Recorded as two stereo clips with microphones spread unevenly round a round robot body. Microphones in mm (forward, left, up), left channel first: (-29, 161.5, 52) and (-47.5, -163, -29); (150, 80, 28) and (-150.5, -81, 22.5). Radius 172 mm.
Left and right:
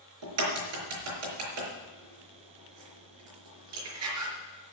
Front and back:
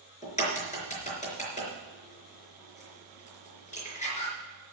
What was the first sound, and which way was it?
A crack, 40° right.